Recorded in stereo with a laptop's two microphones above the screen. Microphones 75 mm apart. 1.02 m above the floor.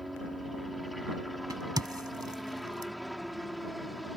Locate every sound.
0.0 s a helicopter: centre (ahead or behind)
1.5 s a crack: 60° right (ahead or behind)